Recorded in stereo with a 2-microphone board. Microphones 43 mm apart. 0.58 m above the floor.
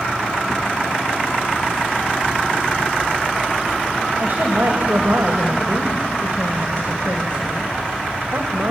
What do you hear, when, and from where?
4.2 s a woman speaking: 60° right (ahead or behind), 2 m